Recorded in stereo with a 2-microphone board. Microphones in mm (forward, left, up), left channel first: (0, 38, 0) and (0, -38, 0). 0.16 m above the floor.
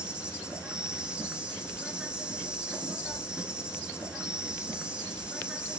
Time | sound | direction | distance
0.0 | an insect | 10° right (ahead or behind) | 0.8 m